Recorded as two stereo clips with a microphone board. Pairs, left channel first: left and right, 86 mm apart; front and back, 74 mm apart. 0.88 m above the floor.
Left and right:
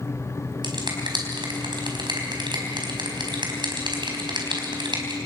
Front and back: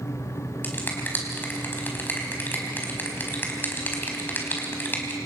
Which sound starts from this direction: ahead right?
A finger snap, at 0.6 s.